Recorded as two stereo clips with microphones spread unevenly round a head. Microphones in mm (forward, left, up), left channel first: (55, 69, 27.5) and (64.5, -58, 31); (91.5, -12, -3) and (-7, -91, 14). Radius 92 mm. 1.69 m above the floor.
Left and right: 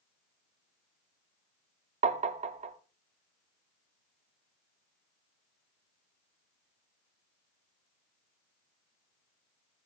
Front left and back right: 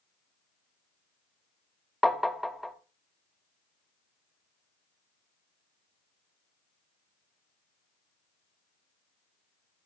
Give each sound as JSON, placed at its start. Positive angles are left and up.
{"t": 2.0, "sound": "tapping", "azimuth_deg": -50, "distance_m": 0.8}